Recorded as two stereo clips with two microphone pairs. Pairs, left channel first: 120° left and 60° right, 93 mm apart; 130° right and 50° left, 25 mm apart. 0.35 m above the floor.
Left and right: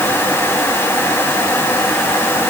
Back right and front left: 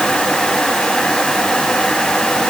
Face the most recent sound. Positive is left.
No sound to turn to.